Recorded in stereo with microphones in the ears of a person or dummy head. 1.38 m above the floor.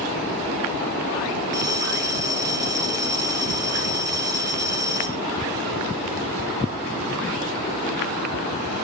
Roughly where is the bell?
Right.